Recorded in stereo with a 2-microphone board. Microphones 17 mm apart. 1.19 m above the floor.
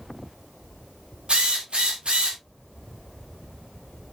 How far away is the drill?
About 3 m.